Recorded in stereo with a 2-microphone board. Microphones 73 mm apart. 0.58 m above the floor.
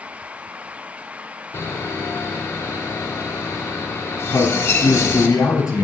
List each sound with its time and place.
1.5 s sawing: 35° left (ahead or behind), 1.6 m
4.3 s a man speaking: 50° left (ahead or behind), 4.5 m